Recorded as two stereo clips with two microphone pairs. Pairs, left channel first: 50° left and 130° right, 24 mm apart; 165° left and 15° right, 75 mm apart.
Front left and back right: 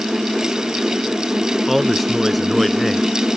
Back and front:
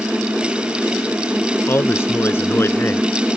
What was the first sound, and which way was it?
A man speaking, 140° left.